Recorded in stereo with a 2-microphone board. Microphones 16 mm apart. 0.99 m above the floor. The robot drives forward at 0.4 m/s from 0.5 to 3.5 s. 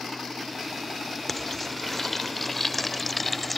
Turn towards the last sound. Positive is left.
turn(degrees=5)  # may be behind; listen again after turning